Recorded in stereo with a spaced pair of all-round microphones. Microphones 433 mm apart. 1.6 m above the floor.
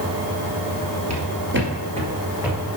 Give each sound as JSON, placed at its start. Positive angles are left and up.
{"t": 1.1, "sound": "footsteps", "side_deg": -35, "distance_m": 2.0}